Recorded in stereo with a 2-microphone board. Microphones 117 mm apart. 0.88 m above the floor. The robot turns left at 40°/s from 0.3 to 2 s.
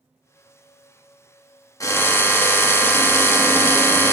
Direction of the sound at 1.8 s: 30° left (ahead or behind).